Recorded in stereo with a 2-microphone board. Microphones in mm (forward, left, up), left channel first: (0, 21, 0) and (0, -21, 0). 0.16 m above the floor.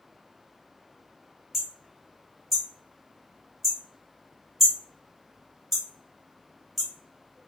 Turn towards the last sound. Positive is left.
turn(degrees=0)  # may be behind; listen again after turning